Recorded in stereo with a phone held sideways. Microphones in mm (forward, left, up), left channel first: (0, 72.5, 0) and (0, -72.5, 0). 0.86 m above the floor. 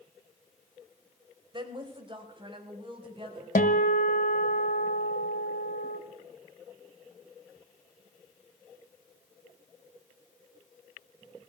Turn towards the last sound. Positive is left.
turn(degrees=75)  # may be behind; listen again after turning